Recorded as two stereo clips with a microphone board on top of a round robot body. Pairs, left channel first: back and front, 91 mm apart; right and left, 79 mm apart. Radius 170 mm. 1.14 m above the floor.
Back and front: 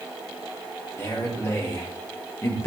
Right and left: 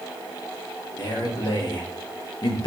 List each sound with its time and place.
1.0 s a man speaking: 120° right, 3 m